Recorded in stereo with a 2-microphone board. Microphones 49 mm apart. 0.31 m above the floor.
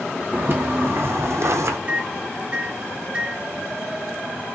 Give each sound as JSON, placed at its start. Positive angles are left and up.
{"t": 0.3, "sound": "footsteps", "side_deg": -45, "distance_m": 1.2}
{"t": 1.9, "sound": "a microwave", "side_deg": -25, "distance_m": 1.5}